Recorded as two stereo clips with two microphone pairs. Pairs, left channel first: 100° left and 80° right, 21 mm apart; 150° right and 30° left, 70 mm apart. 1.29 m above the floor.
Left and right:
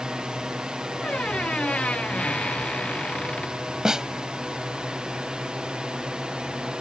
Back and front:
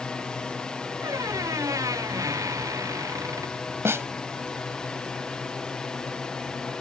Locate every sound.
0.0 s a drone: 80° right; by 6.8 s 75° right
1.0 s a squeak: 70° left
3.9 s a snare drum: 20° right